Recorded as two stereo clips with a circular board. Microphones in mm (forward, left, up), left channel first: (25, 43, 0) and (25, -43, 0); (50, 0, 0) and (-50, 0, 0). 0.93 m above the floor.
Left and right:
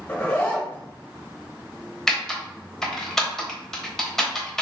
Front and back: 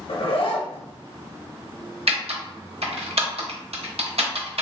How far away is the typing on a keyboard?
About 0.7 m.